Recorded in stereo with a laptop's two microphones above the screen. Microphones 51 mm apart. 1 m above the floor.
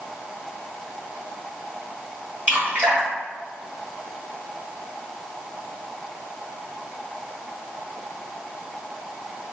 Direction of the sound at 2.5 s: 30° right (ahead or behind).